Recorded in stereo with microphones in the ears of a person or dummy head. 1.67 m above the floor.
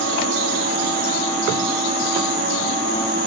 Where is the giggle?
No giggle in this recording.